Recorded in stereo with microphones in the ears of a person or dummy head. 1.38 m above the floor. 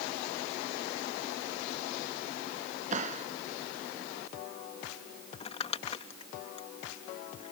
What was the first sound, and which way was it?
A clap, 45° right (ahead or behind).